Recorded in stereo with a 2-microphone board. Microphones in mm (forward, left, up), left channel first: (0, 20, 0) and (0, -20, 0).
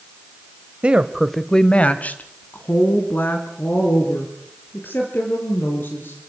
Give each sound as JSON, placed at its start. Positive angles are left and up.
{"t": 0.8, "sound": "a woman speaking", "side_deg": -30, "distance_m": 1.3}